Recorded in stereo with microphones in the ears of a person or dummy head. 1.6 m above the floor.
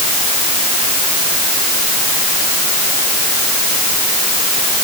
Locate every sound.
Only background noise.